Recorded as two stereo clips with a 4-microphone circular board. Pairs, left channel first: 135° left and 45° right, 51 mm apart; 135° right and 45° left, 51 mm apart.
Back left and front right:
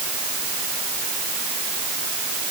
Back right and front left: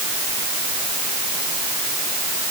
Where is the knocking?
I don't hear knocking.